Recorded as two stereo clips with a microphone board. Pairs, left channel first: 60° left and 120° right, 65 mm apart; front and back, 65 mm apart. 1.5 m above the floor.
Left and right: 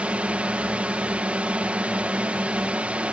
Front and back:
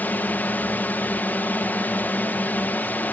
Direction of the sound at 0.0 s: 55° right.